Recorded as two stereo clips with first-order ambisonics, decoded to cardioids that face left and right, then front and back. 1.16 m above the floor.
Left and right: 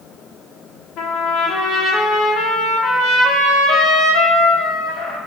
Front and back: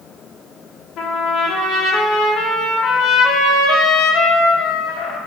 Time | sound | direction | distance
1.0 | a trumpet | 50° left | 0.7 m